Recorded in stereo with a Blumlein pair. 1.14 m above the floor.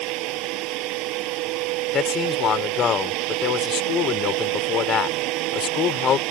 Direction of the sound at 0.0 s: 40° right.